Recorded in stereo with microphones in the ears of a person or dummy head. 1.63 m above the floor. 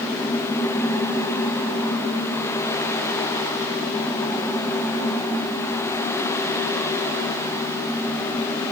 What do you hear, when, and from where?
Only background noise.